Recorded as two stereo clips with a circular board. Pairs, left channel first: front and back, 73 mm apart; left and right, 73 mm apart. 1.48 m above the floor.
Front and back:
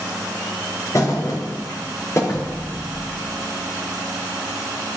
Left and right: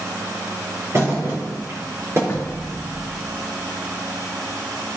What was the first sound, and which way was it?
A thud, 40° right.